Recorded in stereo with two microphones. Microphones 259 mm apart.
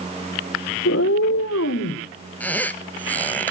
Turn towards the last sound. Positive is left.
turn(degrees=5)  # may be behind; listen again after turning